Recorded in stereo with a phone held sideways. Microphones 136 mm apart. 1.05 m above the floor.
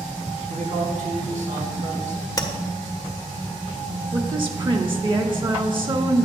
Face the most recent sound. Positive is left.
turn(degrees=-35)  # may be behind; listen again after turning